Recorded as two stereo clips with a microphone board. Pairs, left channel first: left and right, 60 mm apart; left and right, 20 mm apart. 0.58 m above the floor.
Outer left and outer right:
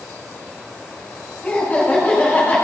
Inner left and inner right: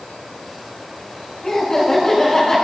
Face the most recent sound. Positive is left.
turn(degrees=15)  # may be behind; listen again after turning